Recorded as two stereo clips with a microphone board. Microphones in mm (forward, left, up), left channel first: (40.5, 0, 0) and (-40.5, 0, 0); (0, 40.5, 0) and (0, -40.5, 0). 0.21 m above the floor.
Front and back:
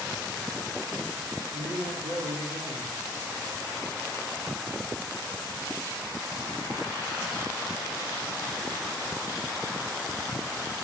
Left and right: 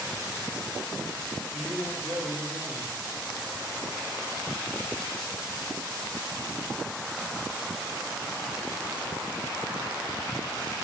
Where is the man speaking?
170° left, 5.5 m.